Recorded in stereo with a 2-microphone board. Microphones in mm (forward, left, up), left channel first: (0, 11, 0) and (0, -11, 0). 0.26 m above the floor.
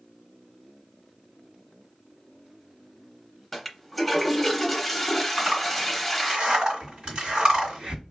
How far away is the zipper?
About 2.0 m.